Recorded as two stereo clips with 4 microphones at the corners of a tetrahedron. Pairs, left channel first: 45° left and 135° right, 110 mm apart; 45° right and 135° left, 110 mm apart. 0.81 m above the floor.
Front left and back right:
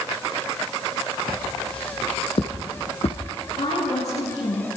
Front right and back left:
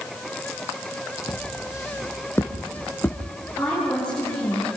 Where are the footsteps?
10° left, 2 m; by 3.2 s 30° left, 3 m.